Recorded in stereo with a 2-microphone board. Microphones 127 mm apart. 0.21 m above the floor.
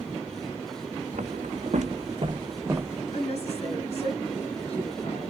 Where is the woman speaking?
55° left (ahead or behind), 2 m.